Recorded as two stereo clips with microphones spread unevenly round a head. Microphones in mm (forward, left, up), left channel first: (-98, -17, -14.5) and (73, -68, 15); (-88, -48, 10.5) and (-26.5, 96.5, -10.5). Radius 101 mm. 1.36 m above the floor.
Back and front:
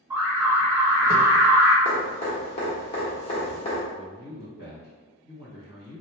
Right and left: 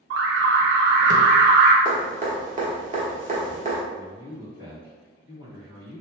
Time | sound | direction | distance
0.1 | an alarm | 65° left | 0.6 m
1.9 | dripping | 100° left | 1.2 m
3.9 | a man speaking | 20° left | 1.7 m